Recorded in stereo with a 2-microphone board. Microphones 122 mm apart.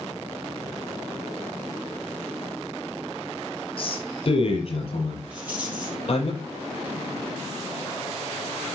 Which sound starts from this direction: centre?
A rattle, at 5.3 s.